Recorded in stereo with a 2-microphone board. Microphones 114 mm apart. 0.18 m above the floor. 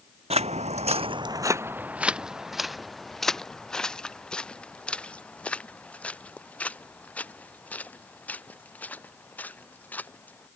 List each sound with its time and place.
0.3 s footsteps: 65° right (ahead or behind); by 10.5 s 15° left (ahead or behind)